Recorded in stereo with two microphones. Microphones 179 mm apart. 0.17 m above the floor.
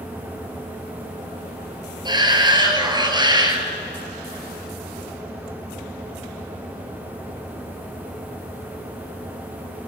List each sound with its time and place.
2.0 s a shout: 25° right (ahead or behind), 3.5 m